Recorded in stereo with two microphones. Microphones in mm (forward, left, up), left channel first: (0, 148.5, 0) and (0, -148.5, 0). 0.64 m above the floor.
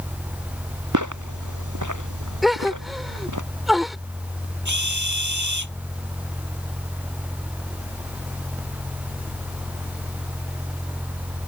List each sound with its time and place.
0.9 s footsteps: 80° right; by 3.4 s 85° right
2.4 s a gasp: centre (ahead or behind)
4.7 s a drill: 75° right (ahead or behind)